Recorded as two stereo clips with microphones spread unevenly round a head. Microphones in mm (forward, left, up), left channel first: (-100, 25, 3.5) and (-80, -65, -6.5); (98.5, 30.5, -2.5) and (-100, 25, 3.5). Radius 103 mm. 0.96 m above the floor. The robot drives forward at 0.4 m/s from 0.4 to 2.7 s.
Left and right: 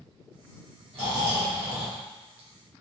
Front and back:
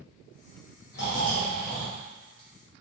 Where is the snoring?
45° right, 0.9 m; by 2.8 s 95° right, 0.7 m.